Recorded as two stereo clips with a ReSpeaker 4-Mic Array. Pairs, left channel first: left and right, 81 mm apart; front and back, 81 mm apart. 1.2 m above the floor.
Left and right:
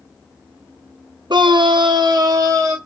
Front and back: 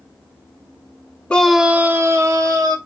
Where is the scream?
75° right, 0.7 m; by 2.8 s 140° right, 1.4 m.